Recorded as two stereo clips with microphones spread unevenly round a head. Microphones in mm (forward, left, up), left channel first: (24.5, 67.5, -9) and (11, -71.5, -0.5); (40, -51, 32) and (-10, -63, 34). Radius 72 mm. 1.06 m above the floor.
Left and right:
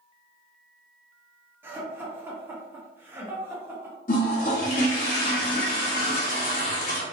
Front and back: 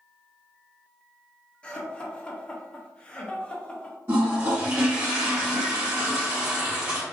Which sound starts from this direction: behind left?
A toilet flushing, at 4.1 s.